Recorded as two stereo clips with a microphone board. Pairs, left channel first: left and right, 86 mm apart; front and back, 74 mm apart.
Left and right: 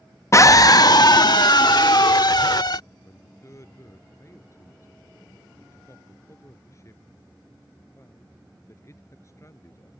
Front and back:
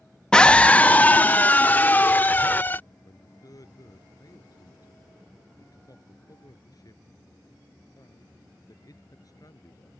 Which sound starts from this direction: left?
A scream, at 0.3 s.